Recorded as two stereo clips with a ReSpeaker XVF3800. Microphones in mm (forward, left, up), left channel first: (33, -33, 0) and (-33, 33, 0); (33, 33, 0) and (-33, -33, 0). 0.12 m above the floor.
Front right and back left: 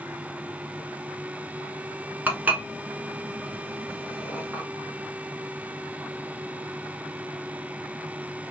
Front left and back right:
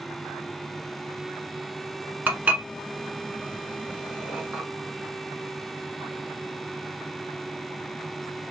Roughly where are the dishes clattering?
Behind.